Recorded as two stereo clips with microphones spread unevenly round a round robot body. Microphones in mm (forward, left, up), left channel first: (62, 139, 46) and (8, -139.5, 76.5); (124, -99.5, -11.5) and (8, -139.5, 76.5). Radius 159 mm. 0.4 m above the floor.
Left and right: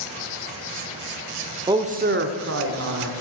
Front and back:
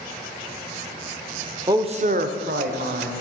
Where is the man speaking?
25° right, 0.8 m; by 3.2 s 145° right, 1.8 m.